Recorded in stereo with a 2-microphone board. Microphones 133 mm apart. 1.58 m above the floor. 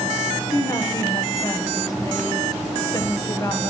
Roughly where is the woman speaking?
Left.